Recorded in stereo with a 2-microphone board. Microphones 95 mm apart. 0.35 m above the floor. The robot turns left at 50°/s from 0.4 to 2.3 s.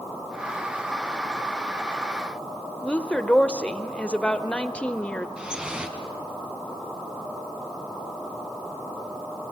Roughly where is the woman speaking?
Centre.